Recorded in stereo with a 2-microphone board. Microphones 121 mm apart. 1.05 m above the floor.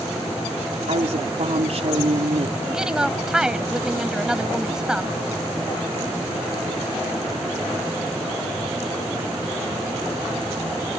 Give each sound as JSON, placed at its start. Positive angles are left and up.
{"t": 0.9, "sound": "a woman speaking", "side_deg": -60}
{"t": 2.7, "sound": "a woman speaking", "side_deg": -5}